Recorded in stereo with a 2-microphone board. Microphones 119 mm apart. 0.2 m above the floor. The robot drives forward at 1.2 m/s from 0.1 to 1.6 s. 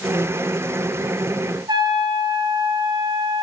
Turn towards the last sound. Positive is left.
turn(degrees=-35)  # may be behind; listen again after turning